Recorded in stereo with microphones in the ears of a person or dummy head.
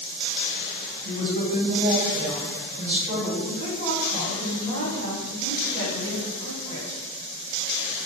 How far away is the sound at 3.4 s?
About 1.4 m.